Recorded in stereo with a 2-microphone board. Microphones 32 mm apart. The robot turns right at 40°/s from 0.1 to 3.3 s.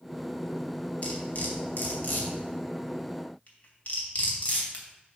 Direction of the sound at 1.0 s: 45° left (ahead or behind).